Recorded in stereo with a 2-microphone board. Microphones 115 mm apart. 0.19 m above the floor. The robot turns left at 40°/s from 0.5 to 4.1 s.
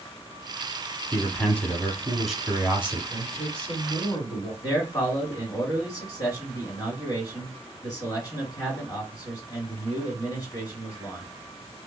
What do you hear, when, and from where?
1.1 s a man speaking: 15° left (ahead or behind), 1.3 m; by 3.0 s 15° right (ahead or behind), 1.3 m
3.1 s a man speaking: 120° left, 1.8 m; by 4.5 s 80° left, 1.8 m
4.6 s a man speaking: 35° left (ahead or behind), 2 m